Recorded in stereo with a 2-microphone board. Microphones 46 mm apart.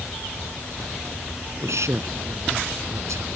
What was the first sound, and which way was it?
A man speaking, 80° right.